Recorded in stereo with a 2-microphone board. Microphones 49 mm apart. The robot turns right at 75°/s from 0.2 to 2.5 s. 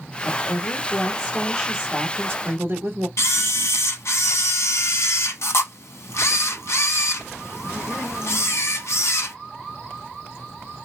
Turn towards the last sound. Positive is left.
turn(degrees=70)  # may be behind; listen again after turning